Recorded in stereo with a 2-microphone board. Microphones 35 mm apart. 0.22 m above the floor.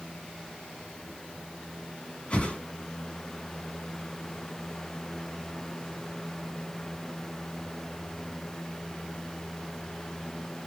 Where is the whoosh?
35° left (ahead or behind), 1.9 m.